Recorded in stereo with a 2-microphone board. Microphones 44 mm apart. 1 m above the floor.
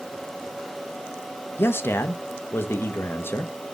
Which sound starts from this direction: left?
A man speaking, at 1.6 s.